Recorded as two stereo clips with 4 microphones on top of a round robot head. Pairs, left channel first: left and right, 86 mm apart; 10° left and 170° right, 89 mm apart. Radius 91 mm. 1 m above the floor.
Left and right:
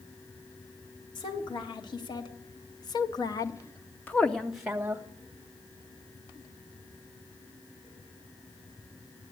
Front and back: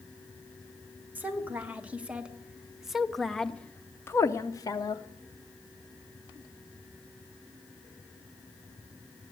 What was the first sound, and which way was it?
A woman speaking, 115° left.